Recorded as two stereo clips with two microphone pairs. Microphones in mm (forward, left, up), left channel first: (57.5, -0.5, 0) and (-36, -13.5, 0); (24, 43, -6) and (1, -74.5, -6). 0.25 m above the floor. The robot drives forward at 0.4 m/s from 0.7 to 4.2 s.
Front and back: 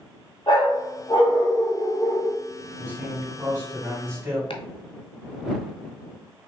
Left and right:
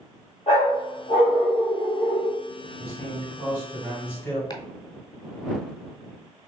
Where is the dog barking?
40° left, 2.5 m; by 2.4 s 55° left, 1.9 m.